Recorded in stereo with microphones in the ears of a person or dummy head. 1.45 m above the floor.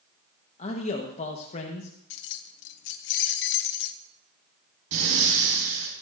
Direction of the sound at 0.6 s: 40° left (ahead or behind).